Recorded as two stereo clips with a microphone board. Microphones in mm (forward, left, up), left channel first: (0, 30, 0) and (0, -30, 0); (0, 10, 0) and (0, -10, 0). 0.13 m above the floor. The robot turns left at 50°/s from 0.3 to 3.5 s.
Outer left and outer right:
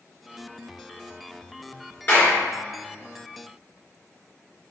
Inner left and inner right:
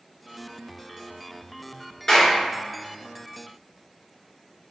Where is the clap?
40° left (ahead or behind), 1.9 m; by 2.4 s 30° left (ahead or behind), 1.9 m.